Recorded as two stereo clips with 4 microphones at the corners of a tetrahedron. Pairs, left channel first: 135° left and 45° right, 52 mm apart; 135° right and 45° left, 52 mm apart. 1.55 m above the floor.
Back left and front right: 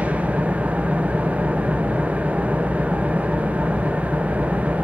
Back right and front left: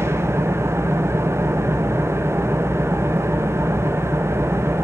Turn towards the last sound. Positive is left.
turn(degrees=15)